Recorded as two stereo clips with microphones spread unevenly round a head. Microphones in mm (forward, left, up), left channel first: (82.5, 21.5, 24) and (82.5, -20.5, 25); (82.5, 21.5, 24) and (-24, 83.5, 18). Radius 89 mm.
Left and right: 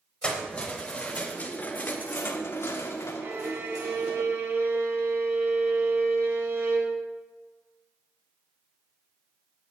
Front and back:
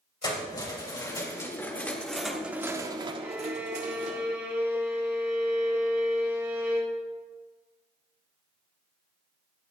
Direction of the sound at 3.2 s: 130° right.